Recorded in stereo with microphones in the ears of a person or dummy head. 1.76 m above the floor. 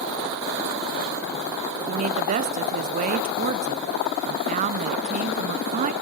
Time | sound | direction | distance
1.9 | a woman speaking | 35° right (ahead or behind) | 0.8 m